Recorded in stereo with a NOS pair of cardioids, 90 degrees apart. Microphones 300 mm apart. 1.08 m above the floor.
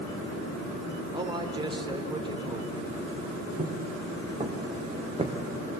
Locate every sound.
1.1 s a man speaking: 15° right, 3.5 m
3.6 s footsteps: 20° right, 3.5 m